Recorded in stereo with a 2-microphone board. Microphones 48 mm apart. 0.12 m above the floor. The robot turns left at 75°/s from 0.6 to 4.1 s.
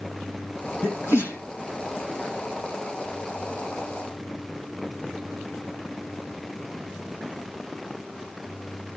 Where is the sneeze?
75° left (ahead or behind), 5 m; by 1.4 s 50° left (ahead or behind), 5 m.